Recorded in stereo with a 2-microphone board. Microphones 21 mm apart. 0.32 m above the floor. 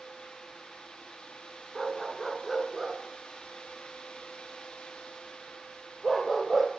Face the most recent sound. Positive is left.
turn(degrees=-5)  # may be behind; listen again after turning